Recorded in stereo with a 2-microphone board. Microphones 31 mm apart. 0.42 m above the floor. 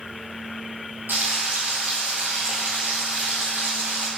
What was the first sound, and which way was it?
Frying, 85° right.